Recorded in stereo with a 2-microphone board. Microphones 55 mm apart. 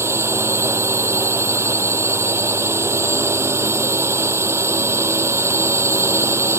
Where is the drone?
55° right (ahead or behind).